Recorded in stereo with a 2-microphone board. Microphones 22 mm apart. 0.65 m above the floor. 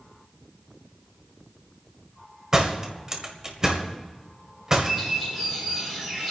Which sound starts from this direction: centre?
A bird, at 4.8 s.